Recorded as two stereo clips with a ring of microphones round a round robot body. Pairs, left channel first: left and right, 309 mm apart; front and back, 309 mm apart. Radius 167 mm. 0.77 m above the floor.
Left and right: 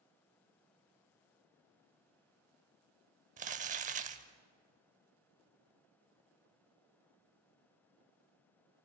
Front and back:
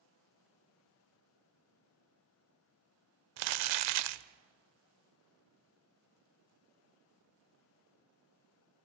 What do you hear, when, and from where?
3.4 s crumpling: 155° right, 0.7 m